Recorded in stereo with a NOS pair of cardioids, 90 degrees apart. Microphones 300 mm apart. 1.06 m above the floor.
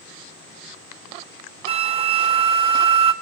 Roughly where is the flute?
Ahead.